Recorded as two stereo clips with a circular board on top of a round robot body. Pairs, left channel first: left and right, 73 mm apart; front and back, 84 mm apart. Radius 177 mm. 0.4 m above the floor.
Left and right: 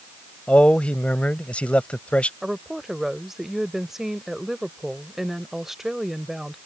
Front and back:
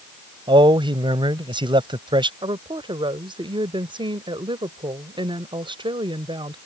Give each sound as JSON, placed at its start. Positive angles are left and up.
{"t": 0.5, "sound": "a man speaking", "azimuth_deg": 165}
{"t": 2.4, "sound": "a woman speaking", "azimuth_deg": -175}